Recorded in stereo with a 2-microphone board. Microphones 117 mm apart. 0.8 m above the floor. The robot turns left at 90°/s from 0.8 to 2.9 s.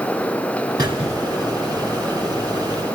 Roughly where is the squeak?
Ahead right.